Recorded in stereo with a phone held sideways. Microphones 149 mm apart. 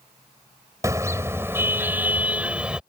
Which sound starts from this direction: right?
A car horn, at 0.8 s.